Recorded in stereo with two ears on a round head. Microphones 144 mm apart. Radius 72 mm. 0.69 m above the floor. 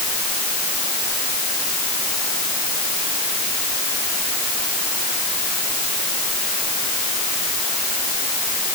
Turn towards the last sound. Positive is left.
No sound to turn to.